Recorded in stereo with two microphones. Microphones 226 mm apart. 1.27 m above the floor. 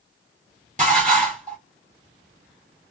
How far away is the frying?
I don't hear frying.